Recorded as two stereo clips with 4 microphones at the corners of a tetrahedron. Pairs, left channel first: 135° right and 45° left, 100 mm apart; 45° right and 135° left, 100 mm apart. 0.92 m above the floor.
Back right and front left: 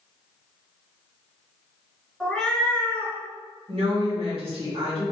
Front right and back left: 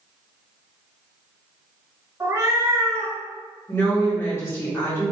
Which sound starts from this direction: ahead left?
A woman speaking, at 3.7 s.